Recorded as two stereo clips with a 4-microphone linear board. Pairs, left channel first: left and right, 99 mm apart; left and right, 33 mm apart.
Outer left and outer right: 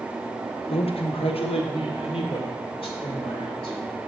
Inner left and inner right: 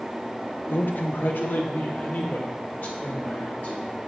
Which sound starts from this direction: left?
A man speaking, at 0.7 s.